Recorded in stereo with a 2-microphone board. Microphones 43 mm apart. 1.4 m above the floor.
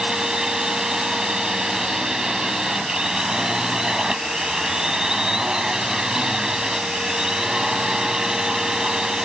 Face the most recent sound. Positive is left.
turn(degrees=-15)  # may be behind; listen again after turning